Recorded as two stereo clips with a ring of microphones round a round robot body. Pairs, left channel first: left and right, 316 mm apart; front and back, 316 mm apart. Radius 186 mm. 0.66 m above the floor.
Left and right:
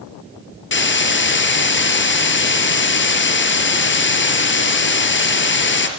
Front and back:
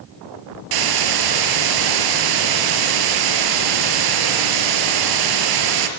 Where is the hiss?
145° left, 4 m.